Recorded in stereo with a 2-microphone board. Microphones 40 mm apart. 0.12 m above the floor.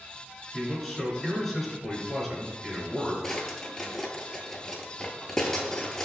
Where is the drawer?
15° left (ahead or behind), 0.6 m.